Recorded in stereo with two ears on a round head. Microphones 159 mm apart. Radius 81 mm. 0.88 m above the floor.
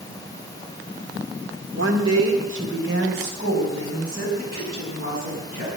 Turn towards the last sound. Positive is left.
turn(degrees=-50)  # may be behind; listen again after turning